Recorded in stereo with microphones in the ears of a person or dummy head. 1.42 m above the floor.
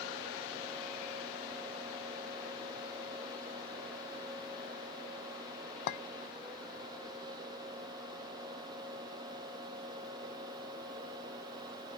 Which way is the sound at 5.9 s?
60° left (ahead or behind).